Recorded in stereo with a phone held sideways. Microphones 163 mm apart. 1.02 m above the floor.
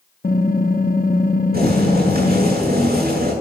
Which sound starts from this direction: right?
Boiling, at 1.5 s.